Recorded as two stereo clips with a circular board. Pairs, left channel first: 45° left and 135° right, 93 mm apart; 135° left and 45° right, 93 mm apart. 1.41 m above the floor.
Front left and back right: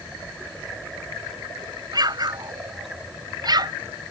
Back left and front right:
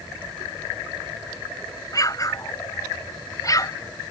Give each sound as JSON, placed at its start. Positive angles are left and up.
{"t": 1.9, "sound": "an explosion", "azimuth_deg": -175}